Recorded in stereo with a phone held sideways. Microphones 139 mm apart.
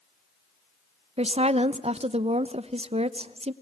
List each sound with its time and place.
1.2 s a woman speaking: 45° right (ahead or behind), 0.8 m